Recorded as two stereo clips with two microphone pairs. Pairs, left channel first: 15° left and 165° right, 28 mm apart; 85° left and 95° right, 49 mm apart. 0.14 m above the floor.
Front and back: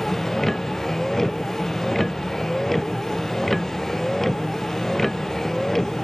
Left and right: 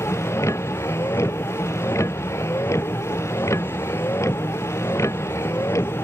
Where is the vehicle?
95° left.